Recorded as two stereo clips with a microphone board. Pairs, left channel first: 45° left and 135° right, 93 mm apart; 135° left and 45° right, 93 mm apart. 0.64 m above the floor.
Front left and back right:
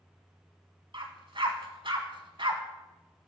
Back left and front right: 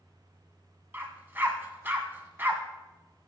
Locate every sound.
0.9 s a dog barking: 110° right, 1.3 m